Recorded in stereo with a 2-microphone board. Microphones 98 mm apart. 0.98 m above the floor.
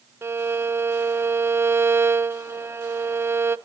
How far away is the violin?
About 0.5 m.